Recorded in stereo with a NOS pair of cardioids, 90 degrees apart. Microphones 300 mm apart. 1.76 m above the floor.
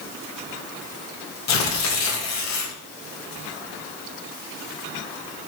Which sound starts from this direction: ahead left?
Tearing paper, at 1.5 s.